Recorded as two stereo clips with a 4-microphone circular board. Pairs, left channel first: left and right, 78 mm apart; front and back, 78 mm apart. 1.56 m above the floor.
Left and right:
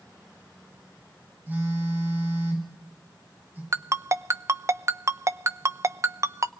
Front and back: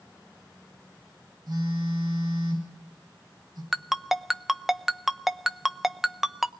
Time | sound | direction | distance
1.5 | a phone buzzing | 155° right | 8.5 m
3.7 | a ringtone | 95° right | 0.7 m